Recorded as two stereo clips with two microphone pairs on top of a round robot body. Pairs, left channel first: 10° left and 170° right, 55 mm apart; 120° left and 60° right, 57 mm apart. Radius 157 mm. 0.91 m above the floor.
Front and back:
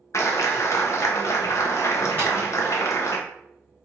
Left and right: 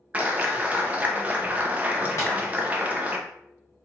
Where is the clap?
5° left, 0.9 m.